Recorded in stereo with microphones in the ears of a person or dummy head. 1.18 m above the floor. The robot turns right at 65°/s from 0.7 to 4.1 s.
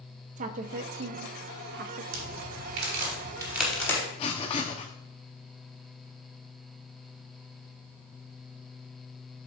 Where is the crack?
75° right (ahead or behind), 3 m; by 4.0 s 20° left (ahead or behind), 3 m.